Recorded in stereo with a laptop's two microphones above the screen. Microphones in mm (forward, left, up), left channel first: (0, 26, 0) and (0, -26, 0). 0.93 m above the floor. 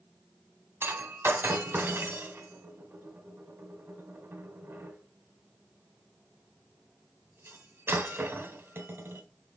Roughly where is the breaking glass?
Right.